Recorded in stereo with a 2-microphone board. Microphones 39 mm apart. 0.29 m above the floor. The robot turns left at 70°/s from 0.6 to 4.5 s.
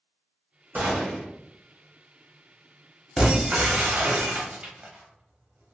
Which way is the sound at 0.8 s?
95° right.